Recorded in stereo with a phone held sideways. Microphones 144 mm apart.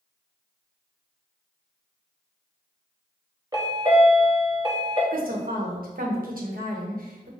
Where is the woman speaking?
80° right, 1.0 m.